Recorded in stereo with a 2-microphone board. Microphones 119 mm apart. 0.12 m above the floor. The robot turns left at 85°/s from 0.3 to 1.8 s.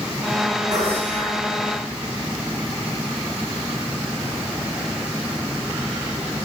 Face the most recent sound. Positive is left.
turn(degrees=125)